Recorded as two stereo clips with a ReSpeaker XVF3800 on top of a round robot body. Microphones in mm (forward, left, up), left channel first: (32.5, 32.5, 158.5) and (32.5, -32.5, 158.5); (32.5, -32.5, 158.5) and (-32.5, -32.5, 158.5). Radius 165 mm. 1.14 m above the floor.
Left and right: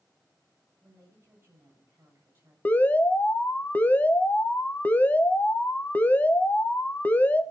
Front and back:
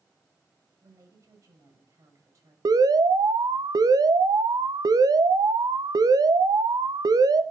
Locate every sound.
0.8 s a woman speaking: 145° right, 7 m
2.6 s an alarm: 155° left, 1.1 m